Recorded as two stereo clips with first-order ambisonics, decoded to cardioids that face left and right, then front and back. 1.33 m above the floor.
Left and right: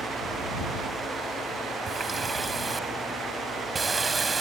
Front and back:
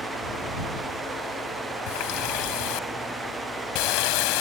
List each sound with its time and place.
1.9 s a running tap: 15° right